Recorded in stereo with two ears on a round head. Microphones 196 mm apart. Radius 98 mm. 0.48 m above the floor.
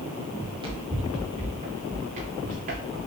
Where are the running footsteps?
20° right (ahead or behind), 4 m; by 3.1 s 45° right (ahead or behind), 1.6 m.